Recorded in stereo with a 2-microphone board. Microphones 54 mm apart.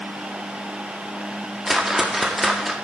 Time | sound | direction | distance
1.7 | a whoosh | 5° right (ahead or behind) | 1.8 m